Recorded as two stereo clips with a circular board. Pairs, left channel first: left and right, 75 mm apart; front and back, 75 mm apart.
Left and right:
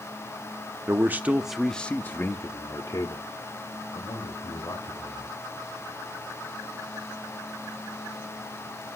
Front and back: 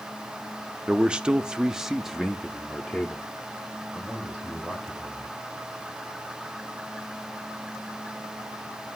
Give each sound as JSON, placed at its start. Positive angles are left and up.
{"t": 0.9, "sound": "a man speaking", "azimuth_deg": -110, "distance_m": 0.6}